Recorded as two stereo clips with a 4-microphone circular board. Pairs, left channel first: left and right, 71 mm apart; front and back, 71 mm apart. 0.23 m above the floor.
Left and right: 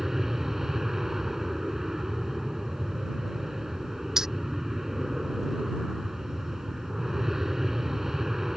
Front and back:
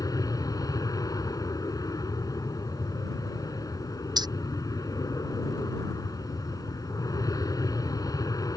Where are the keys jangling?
175° right.